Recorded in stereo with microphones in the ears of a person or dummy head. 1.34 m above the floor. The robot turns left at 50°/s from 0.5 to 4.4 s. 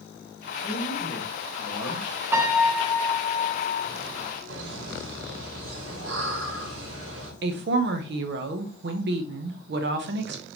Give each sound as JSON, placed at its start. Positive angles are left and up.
{"t": 0.6, "sound": "a man speaking", "azimuth_deg": 155, "distance_m": 1.5}
{"t": 2.3, "sound": "a piano", "azimuth_deg": -165, "distance_m": 0.7}
{"t": 4.5, "sound": "laughter", "side_deg": -70, "distance_m": 1.5}
{"t": 7.4, "sound": "a woman speaking", "side_deg": -45, "distance_m": 0.5}